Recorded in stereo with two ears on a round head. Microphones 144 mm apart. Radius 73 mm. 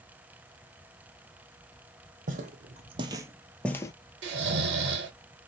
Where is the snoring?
80° right, 0.8 m.